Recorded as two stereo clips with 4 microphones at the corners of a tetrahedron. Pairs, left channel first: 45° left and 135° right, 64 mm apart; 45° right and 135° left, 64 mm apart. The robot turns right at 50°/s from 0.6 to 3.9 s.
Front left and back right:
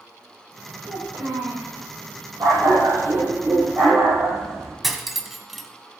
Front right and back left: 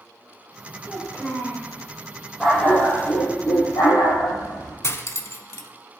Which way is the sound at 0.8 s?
165° right.